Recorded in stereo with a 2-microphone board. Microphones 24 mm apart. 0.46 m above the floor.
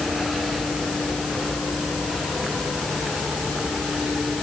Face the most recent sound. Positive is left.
No sound to turn to.